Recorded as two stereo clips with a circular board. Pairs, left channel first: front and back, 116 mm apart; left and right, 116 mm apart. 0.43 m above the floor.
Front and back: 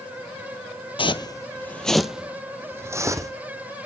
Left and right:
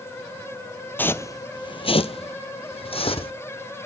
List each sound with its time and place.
1.0 s footsteps: 20° left, 0.6 m; by 3.3 s 120° left, 1.2 m